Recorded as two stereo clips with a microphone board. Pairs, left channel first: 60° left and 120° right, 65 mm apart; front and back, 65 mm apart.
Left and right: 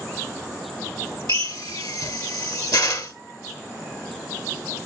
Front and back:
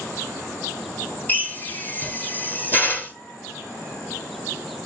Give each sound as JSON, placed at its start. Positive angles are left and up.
{"t": 1.3, "sound": "a drill", "azimuth_deg": 65, "distance_m": 2.5}